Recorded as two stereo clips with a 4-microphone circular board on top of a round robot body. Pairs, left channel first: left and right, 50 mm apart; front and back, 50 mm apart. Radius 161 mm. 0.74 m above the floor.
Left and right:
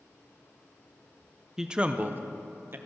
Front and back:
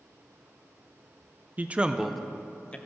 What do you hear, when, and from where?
1.6 s a man speaking: 160° right, 0.7 m; by 2.8 s 55° right, 1.0 m